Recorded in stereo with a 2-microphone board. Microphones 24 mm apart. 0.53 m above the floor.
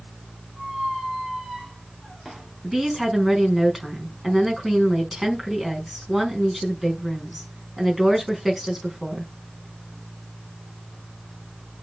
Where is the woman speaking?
5° right (ahead or behind), 4.5 m.